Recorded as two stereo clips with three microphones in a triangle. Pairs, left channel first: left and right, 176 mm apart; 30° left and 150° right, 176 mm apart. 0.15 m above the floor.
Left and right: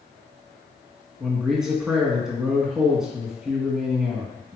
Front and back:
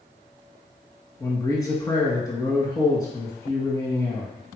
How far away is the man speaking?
About 1.7 m.